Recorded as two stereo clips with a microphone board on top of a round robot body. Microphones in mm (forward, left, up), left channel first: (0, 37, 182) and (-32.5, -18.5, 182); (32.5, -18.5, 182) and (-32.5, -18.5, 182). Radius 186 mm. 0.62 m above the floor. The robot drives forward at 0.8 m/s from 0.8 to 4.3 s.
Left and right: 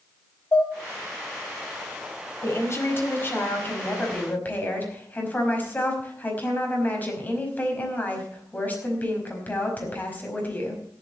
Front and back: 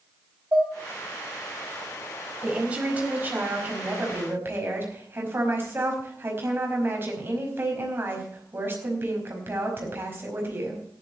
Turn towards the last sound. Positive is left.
turn(degrees=125)